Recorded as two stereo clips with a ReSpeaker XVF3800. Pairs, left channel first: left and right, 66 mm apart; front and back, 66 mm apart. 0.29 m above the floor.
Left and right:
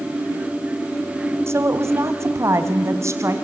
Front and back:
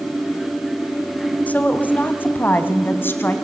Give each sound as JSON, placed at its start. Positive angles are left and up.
{"t": 1.5, "sound": "a woman speaking", "azimuth_deg": -60, "distance_m": 2.0}